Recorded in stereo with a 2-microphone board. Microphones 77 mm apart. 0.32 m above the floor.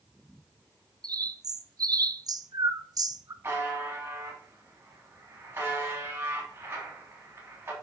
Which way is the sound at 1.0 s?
50° right (ahead or behind).